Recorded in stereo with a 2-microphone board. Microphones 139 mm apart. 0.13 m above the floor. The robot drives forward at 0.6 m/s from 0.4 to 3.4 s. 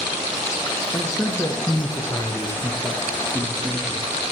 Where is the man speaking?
25° left (ahead or behind), 1.3 m; by 4.1 s 15° left (ahead or behind), 1.9 m.